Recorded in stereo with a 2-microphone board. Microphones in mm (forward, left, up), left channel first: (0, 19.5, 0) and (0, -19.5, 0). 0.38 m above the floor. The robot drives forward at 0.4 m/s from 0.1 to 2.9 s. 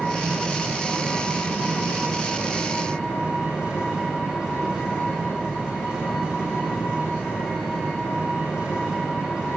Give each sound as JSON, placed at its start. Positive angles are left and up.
{"t": 0.0, "sound": "an engine running", "side_deg": -20, "distance_m": 5.5}